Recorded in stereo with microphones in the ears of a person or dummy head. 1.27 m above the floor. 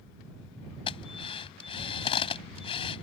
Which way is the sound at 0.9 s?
30° left (ahead or behind).